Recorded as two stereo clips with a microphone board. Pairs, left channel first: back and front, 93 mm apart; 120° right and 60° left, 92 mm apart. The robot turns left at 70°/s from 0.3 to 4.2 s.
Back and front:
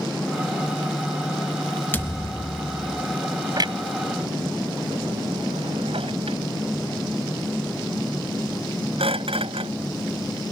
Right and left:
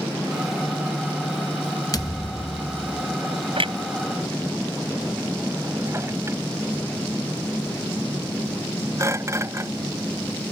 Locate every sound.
1.9 s a thud: 120° right; by 3.2 s 155° left
3.6 s a clunk: 45° left; by 9.7 s straight ahead